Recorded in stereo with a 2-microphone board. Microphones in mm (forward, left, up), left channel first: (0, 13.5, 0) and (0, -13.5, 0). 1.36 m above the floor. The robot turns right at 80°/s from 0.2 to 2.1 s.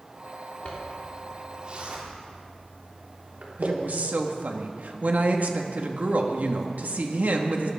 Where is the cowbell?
No cowbell in this recording.